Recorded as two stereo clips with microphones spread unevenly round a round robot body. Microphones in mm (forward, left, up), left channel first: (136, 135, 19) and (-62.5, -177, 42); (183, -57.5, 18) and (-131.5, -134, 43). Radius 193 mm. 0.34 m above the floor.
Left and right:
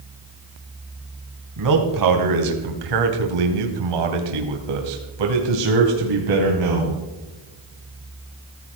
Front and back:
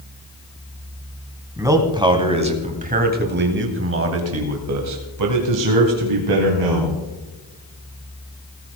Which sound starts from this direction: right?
A man speaking, at 1.6 s.